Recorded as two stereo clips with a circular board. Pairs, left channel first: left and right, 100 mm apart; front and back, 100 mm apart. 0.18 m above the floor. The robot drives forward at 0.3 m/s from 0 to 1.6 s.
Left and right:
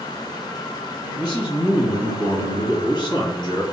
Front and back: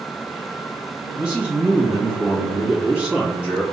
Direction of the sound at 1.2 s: 100° left.